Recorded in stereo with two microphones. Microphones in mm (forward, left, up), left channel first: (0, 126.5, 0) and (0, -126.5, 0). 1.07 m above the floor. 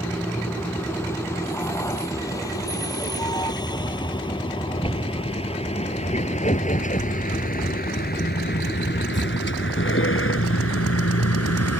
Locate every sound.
0.0 s a vehicle: 10° left (ahead or behind); by 11.8 s 75° left (ahead or behind)